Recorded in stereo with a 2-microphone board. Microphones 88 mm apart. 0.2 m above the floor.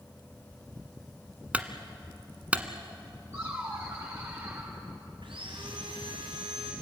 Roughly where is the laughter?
Right.